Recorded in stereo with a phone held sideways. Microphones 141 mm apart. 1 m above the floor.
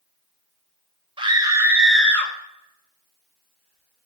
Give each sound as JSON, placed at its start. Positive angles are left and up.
{"t": 1.2, "sound": "a scream", "side_deg": -40, "distance_m": 0.8}